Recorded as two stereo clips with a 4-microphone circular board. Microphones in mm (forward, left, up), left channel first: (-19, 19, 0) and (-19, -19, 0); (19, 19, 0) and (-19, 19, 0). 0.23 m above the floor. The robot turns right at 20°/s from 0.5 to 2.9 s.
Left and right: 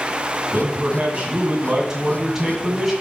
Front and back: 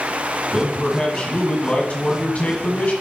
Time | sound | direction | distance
0.5 | a man speaking | 60° right | 1.6 m